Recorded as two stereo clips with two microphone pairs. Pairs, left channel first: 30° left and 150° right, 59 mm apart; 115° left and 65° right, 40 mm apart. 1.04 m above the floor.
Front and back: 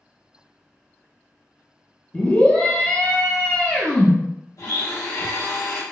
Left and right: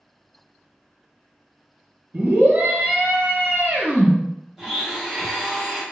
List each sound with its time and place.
2.1 s a scream: 45° right, 1.0 m
4.6 s a blender: 15° left, 1.0 m